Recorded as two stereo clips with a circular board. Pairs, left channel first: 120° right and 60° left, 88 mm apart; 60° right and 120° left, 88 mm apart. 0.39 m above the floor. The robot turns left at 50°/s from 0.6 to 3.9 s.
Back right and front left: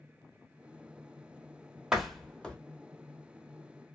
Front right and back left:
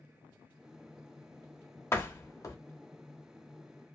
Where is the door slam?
20° right, 0.7 m; by 2.6 s 50° right, 0.7 m.